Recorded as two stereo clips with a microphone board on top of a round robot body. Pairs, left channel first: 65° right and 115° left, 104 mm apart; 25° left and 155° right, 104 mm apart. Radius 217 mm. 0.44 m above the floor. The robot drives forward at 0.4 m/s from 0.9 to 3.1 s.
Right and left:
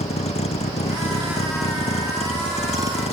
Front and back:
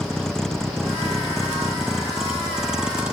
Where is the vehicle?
60° right; by 3.1 s 75° right.